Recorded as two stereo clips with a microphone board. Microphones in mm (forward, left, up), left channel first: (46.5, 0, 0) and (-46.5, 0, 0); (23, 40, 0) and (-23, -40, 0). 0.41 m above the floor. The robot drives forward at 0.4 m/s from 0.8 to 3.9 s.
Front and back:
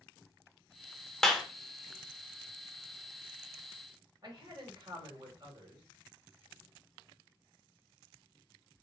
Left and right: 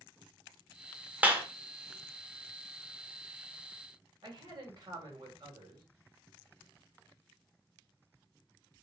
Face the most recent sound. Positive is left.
turn(degrees=-150)